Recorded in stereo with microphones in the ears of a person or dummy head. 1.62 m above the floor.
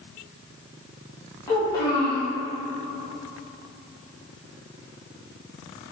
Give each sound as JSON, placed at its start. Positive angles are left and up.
{"t": 1.5, "sound": "a child speaking", "side_deg": 20, "distance_m": 2.0}